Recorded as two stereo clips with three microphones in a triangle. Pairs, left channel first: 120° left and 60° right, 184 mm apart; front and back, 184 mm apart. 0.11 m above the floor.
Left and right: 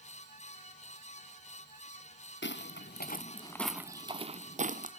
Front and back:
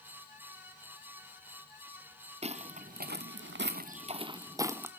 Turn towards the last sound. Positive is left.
turn(degrees=-100)